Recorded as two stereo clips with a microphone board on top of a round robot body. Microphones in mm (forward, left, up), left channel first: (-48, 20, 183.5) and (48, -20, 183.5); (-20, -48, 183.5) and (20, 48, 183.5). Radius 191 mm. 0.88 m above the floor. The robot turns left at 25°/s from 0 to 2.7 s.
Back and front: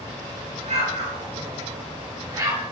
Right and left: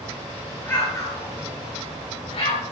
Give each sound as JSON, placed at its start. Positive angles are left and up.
{"t": 0.7, "sound": "an explosion", "azimuth_deg": -40, "distance_m": 9.5}